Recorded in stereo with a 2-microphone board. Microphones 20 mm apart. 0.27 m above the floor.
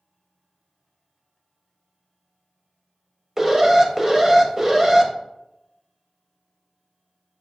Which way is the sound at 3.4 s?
20° right (ahead or behind).